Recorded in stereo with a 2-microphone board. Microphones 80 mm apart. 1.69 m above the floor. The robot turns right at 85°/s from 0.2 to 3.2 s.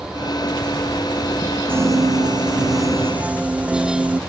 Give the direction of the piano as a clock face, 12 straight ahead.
5 o'clock.